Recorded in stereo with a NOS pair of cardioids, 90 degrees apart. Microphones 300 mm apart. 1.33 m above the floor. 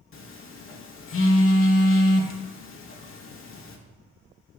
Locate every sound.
0.1 s a phone buzzing: 45° left, 1.2 m